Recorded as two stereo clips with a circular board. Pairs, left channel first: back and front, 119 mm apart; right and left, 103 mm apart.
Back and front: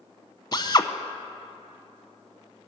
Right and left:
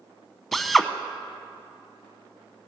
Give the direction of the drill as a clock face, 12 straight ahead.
6 o'clock.